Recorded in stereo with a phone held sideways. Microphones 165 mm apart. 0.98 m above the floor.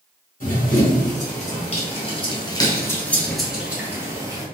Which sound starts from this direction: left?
Running footsteps, at 0.4 s.